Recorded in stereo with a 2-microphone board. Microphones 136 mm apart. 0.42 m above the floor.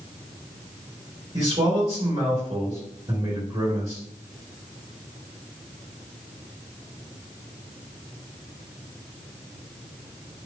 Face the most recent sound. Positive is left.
turn(degrees=-45)  # may be behind; listen again after turning